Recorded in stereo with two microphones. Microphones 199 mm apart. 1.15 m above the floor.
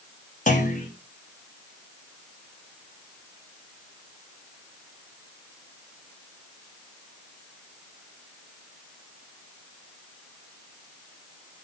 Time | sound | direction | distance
0.5 | a clunk | 40° left (ahead or behind) | 2.5 m